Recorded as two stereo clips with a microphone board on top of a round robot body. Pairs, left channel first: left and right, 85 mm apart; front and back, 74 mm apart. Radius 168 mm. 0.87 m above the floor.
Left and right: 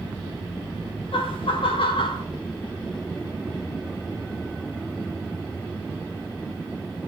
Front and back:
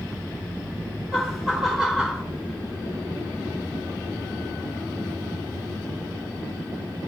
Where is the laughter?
95° left, 4 m; by 2.2 s 100° left, 4 m.